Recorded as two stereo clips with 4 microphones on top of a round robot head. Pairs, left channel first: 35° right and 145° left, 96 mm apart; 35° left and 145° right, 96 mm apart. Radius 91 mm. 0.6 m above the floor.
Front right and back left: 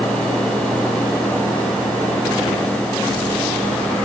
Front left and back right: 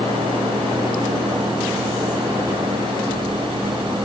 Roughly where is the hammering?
I don't hear hammering.